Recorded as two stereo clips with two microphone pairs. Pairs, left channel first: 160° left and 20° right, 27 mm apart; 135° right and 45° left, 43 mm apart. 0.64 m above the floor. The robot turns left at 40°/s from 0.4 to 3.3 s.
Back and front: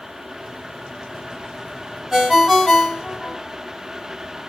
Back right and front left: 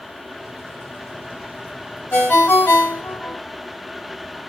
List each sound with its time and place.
2.1 s a ringtone: 95° right, 1.3 m; by 3.4 s 145° right, 1.3 m